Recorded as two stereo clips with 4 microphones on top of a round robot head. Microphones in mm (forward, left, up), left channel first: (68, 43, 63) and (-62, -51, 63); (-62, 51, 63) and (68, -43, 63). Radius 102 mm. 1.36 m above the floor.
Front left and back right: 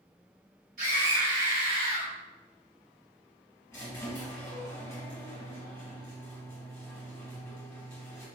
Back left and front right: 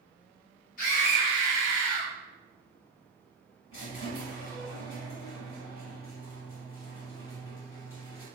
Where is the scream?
Straight behind, 1.9 m; by 2.1 s 125° right, 2.5 m.